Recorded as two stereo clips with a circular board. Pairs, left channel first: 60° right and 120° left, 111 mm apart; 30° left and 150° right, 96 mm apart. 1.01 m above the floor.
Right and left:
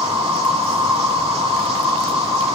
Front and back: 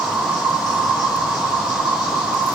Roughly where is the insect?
Behind left.